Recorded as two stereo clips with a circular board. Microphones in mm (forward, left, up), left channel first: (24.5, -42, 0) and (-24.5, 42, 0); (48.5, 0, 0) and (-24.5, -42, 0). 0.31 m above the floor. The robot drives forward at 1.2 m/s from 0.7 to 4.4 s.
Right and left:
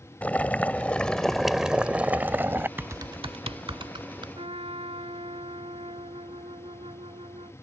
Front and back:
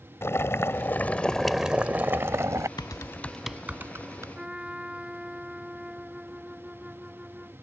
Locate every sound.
0.2 s boiling: 5° left; by 2.7 s straight behind
2.8 s typing on a keyboard: 55° left; by 4.2 s 155° left
4.3 s a trumpet: 130° left